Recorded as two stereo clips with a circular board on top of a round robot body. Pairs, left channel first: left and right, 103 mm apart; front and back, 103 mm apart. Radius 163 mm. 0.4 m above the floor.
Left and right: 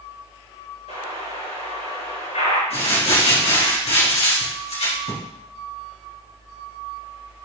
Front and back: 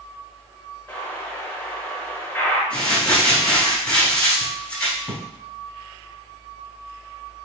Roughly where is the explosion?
Left.